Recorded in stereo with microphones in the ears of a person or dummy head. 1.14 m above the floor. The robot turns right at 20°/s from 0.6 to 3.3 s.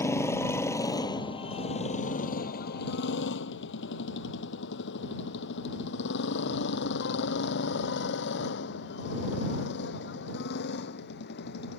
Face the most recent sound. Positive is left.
turn(degrees=55)  # may be behind; listen again after turning